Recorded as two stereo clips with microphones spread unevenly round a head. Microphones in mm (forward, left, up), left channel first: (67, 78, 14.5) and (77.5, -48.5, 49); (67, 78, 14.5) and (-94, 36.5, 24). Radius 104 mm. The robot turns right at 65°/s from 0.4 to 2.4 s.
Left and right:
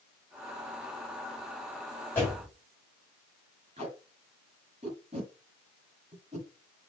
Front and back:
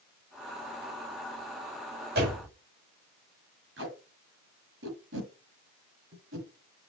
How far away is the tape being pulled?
About 5.5 m.